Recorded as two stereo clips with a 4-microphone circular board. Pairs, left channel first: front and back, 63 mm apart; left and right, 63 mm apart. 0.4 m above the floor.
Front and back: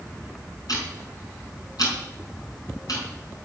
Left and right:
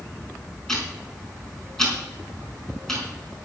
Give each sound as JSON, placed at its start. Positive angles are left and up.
{"t": 0.7, "sound": "ticking", "azimuth_deg": 10, "distance_m": 4.5}